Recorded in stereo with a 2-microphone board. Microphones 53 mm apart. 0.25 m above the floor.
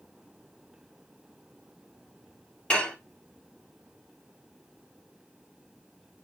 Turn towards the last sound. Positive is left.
turn(degrees=20)  # may be behind; listen again after turning